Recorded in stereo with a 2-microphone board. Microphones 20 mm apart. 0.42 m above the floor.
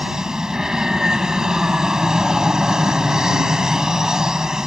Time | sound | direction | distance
0.0 | an aircraft | 35° right (ahead or behind) | ?